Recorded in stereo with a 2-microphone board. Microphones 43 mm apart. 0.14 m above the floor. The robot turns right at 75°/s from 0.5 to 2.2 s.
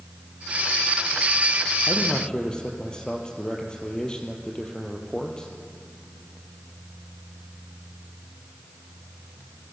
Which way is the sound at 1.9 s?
45° left (ahead or behind).